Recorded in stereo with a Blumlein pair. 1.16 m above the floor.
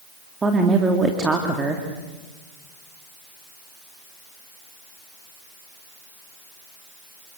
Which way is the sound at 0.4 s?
15° right.